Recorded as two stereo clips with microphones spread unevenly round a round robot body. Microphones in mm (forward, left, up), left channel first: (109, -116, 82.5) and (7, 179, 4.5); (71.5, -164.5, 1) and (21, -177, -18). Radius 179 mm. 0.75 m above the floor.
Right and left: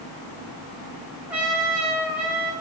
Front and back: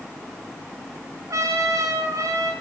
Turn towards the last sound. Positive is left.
turn(degrees=-165)